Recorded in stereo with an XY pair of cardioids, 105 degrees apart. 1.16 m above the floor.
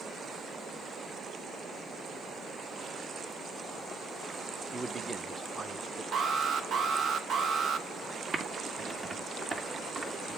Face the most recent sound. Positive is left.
turn(degrees=-40)